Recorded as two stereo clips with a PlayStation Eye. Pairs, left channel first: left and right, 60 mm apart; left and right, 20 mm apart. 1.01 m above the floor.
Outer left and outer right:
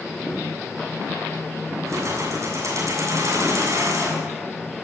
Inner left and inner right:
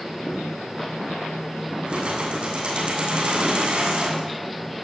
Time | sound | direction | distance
1.9 | keys jangling | 60° right (ahead or behind) | 7.5 m